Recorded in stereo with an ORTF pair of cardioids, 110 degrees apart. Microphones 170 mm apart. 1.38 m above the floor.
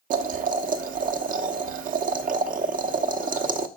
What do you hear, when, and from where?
0.1 s boiling: 55° right, 0.9 m